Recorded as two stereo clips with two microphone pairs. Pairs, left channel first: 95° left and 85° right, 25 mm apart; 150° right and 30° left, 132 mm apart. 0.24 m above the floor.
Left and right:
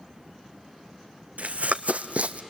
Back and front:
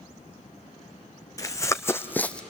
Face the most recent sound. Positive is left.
turn(degrees=-65)